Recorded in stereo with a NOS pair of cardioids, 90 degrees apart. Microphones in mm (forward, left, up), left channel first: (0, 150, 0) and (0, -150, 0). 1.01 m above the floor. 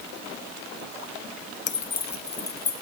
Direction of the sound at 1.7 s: 25° left.